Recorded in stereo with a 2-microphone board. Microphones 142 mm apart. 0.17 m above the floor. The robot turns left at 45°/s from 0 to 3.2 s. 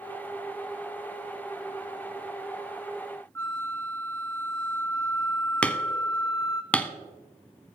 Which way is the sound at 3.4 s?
15° left (ahead or behind).